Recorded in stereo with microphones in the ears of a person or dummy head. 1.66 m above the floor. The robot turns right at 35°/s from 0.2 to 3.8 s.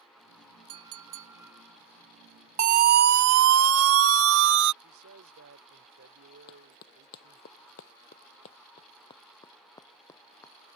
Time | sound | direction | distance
0.7 | a clink | 45° right | ?
2.6 | a siren | 40° right (ahead or behind) | ?
4.8 | a man speaking | 75° right (ahead or behind) | ?
6.5 | running footsteps | 45° left (ahead or behind) | ?